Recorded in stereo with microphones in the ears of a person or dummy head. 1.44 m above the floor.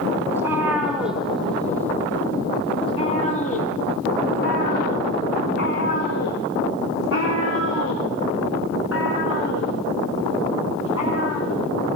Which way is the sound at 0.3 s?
15° right (ahead or behind).